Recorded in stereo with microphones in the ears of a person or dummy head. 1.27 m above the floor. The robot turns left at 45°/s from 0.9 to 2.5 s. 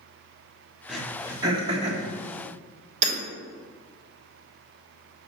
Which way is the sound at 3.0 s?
50° right (ahead or behind).